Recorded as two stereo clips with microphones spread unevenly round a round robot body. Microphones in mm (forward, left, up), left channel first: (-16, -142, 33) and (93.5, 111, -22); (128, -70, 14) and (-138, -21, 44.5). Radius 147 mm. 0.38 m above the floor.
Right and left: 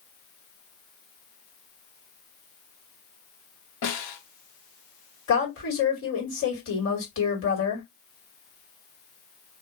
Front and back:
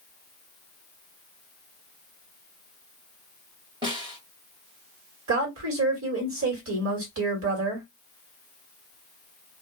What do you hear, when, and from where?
3.8 s a snare drum: 115° right, 1.7 m
5.3 s a woman speaking: 160° right, 2 m